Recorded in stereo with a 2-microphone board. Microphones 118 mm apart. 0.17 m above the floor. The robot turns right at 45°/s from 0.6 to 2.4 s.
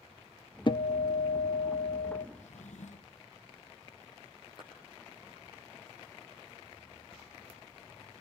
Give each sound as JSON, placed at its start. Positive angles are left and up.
{"t": 0.7, "sound": "a guitar", "azimuth_deg": 45, "distance_m": 0.5}
{"t": 2.4, "sound": "a drawer", "side_deg": 80, "distance_m": 1.5}
{"t": 4.6, "sound": "a clap", "side_deg": 40, "distance_m": 5.5}